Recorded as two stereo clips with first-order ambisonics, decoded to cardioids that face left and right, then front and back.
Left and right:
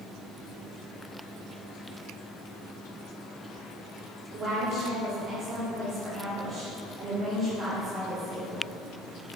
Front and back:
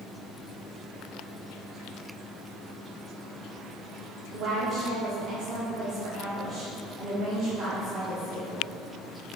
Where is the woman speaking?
140° right, 1.5 m.